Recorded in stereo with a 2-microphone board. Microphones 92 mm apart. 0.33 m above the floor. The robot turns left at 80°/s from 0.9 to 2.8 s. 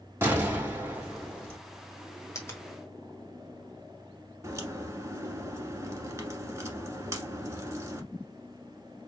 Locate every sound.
0.2 s an explosion: 155° right, 2.5 m; by 1.6 s 150° left, 2.5 m
2.4 s a finger snap: 30° left (ahead or behind), 1.6 m; by 2.7 s 20° left (ahead or behind), 1.6 m
4.4 s a crack: 30° right (ahead or behind), 1.2 m